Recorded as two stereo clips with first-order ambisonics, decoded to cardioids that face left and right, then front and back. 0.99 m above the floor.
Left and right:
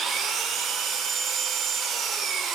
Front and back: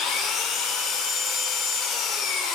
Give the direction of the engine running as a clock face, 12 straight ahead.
1 o'clock.